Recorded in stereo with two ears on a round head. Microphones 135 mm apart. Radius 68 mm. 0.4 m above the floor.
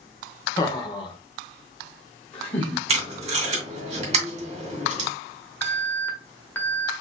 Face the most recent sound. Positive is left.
turn(degrees=15)  # may be behind; listen again after turning